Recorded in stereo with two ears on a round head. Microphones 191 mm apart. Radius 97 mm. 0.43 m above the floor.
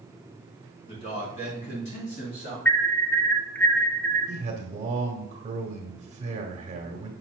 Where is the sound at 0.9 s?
25° left (ahead or behind), 3 m; by 2.5 s 35° left (ahead or behind), 5 m.